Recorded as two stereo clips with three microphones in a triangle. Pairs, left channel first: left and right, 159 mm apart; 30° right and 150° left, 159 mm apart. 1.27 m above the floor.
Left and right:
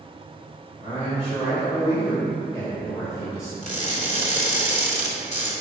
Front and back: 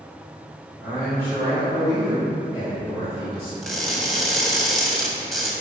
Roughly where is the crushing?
Ahead left.